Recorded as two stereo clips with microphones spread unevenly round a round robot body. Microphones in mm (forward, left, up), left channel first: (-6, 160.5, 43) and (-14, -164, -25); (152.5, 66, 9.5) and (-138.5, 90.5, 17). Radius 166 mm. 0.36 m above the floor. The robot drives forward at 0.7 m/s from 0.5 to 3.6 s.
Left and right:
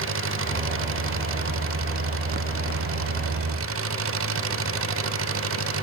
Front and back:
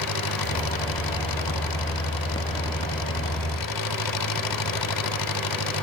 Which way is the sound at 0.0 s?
40° right.